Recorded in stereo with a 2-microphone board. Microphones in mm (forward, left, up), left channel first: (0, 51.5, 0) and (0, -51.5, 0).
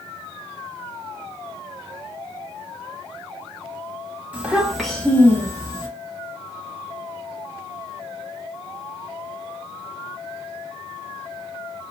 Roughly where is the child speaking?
Centre.